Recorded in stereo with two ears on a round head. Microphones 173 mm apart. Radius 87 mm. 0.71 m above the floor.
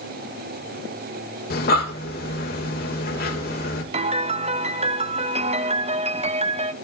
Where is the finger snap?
No finger snap in this recording.